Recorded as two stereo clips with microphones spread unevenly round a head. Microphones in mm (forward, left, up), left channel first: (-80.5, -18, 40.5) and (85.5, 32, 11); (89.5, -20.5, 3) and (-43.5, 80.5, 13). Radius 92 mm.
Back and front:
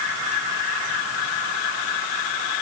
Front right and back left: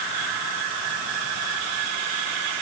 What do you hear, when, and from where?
Only background noise.